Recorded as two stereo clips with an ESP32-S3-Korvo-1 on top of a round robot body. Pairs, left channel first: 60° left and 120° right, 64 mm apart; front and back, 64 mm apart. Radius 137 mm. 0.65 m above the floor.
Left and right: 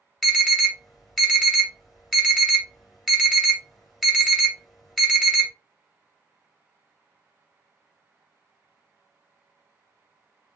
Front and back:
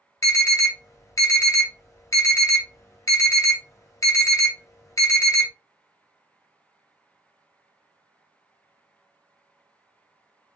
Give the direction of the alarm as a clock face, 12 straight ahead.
1 o'clock.